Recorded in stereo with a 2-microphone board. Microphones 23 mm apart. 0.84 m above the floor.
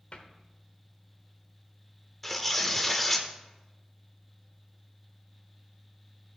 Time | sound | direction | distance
0.1 | a cupboard door | 60° left (ahead or behind) | 1.1 m
2.2 | tearing paper | 5° left (ahead or behind) | 0.8 m